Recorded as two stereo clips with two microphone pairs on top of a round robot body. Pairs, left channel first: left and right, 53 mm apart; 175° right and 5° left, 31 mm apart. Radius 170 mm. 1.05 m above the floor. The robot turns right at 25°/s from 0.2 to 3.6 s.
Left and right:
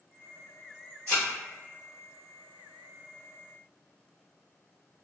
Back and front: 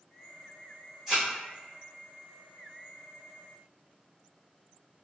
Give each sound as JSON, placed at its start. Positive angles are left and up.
{"t": 1.1, "sound": "a thud", "azimuth_deg": 65, "distance_m": 0.7}